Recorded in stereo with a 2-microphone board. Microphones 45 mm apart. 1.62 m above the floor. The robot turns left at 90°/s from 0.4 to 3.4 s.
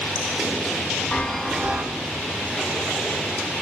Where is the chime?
25° left, 0.6 m; by 1.9 s 40° right, 0.6 m.